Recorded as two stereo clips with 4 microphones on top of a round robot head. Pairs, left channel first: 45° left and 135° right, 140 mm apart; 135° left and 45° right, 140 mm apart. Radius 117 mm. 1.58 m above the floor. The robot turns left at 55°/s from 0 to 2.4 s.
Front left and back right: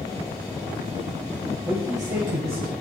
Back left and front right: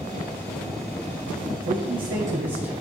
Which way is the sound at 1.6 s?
50° right.